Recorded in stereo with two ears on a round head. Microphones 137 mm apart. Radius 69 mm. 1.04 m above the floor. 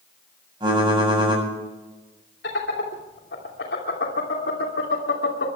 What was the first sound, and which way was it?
Typing on a keyboard, 30° right (ahead or behind).